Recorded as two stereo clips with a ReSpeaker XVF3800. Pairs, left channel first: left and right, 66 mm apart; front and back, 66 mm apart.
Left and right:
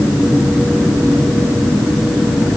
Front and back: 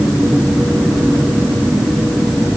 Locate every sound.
Only background noise.